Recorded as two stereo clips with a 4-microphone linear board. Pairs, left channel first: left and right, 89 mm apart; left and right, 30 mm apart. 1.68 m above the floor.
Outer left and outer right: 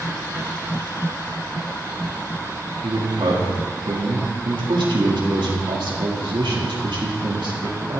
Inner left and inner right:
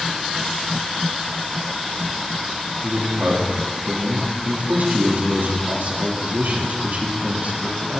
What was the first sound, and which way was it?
A man speaking, 65° right (ahead or behind).